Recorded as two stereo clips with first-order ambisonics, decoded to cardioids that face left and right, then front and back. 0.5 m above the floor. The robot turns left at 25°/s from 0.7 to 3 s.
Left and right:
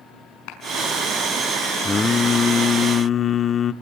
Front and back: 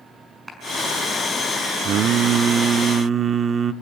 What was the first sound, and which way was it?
A clap, 95° left.